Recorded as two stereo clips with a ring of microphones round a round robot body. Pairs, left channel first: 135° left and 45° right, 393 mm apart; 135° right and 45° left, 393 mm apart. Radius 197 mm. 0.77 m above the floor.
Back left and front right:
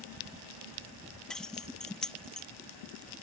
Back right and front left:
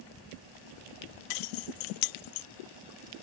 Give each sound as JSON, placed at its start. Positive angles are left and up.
{"t": 1.3, "sound": "keys jangling", "azimuth_deg": -135}